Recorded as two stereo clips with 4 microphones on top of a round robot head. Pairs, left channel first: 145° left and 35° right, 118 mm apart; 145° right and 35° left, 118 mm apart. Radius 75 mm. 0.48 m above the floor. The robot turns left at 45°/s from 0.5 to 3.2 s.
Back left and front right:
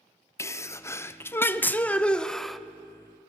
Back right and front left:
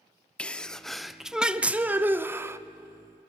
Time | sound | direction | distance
0.4 | a sneeze | 150° left | 0.7 m